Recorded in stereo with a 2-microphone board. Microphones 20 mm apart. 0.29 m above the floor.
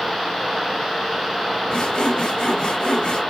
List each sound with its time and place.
1.7 s sawing: 65° left (ahead or behind), 2.0 m